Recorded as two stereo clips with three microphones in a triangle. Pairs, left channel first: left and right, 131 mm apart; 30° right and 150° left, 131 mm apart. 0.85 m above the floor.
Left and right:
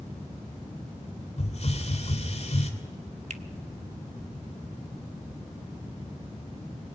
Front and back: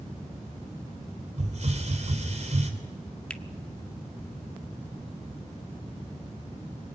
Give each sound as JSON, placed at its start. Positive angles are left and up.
{"t": 1.4, "sound": "a hiss", "azimuth_deg": 120, "distance_m": 3.5}
{"t": 3.3, "sound": "a finger snap", "azimuth_deg": -110, "distance_m": 1.5}